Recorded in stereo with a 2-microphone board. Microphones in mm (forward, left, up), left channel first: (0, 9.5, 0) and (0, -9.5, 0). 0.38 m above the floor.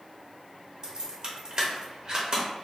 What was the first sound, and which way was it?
Keys jangling, 40° right (ahead or behind).